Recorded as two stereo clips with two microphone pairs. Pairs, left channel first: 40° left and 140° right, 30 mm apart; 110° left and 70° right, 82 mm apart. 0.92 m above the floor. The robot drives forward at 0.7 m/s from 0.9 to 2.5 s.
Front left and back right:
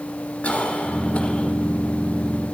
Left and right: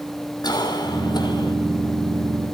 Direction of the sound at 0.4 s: 80° left.